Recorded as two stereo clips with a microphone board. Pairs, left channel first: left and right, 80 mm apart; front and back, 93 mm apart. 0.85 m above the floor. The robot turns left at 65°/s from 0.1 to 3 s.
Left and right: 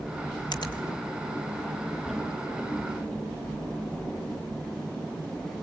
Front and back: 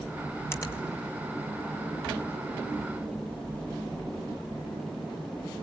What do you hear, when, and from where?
0.5 s a finger snap: 60° left, 3 m; by 0.8 s 45° left, 3 m